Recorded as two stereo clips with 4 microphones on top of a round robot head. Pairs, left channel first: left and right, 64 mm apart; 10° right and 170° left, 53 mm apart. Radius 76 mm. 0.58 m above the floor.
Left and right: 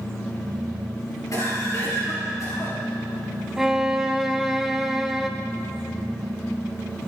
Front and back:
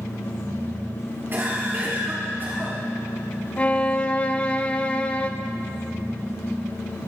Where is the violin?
15° right, 1.1 m.